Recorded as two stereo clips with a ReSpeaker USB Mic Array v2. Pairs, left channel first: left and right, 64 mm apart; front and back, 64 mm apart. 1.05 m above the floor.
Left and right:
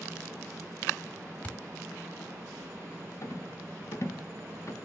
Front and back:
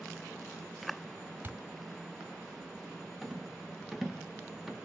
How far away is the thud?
About 1.0 m.